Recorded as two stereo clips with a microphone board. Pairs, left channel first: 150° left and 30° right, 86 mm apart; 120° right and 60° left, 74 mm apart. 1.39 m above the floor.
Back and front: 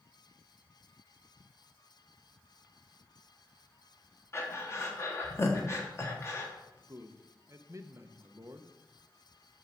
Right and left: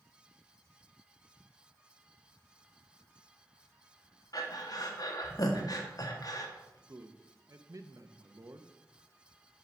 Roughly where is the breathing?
Behind right.